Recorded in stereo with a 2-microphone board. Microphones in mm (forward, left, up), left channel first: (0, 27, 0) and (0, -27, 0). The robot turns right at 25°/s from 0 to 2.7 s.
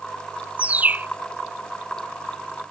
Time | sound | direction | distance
0.6 | a bird | 25° right (ahead or behind) | ?